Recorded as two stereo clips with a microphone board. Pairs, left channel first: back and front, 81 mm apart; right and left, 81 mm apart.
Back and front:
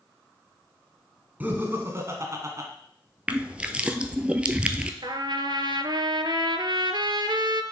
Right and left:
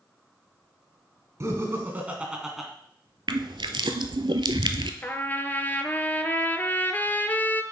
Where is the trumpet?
25° right, 0.6 m.